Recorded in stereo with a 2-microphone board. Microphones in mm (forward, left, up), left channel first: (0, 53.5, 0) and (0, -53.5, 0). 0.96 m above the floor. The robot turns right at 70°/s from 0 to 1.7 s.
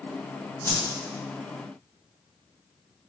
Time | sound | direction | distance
0.6 | a whoosh | 20° left (ahead or behind) | 0.7 m